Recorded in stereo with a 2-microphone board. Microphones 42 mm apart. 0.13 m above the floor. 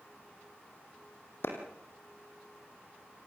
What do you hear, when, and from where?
1.4 s a clap: 60° left (ahead or behind), 4.5 m